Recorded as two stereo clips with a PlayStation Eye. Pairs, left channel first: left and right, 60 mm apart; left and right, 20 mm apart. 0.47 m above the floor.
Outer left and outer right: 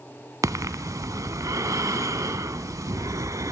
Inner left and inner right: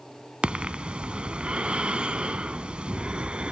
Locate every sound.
0.4 s breathing: 65° right (ahead or behind), 0.6 m